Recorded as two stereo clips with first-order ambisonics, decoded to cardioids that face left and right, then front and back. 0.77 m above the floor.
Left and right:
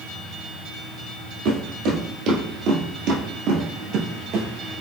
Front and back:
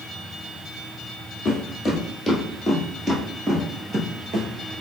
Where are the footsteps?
60° right, 1.6 m; by 4.5 s 135° right, 1.3 m.